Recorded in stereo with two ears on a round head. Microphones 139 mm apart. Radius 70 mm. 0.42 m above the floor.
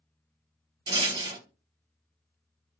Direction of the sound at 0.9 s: 30° right (ahead or behind).